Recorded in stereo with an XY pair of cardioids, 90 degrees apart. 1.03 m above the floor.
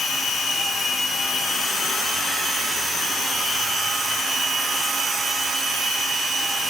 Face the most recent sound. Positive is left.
No sound to turn to.